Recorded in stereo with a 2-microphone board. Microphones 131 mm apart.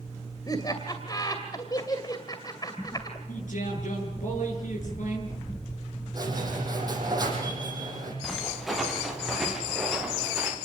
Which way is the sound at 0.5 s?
30° left (ahead or behind).